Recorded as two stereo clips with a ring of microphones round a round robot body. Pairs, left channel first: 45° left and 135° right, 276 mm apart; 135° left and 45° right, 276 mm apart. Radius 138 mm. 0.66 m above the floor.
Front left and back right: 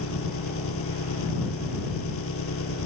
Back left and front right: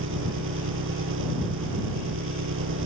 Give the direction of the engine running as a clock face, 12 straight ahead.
12 o'clock.